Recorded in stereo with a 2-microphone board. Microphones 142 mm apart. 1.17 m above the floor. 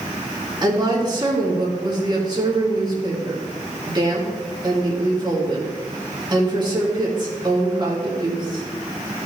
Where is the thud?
No thud in this recording.